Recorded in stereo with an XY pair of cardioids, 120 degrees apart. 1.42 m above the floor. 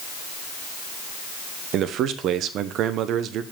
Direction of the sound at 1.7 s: 65° right.